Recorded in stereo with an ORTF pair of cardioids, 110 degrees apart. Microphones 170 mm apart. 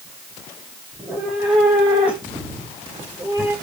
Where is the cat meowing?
Straight ahead, 9 m; by 3.5 s 15° right, 11 m.